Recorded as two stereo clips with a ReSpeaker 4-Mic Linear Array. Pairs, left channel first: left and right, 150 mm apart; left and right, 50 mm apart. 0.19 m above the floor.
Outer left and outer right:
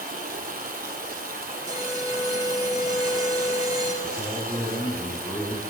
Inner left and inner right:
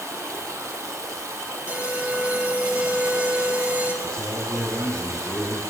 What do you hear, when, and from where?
0.0 s running water: 90° right, 0.7 m
1.7 s an alarm: 25° right (ahead or behind), 0.7 m
4.0 s a man speaking: 20° left (ahead or behind), 1.2 m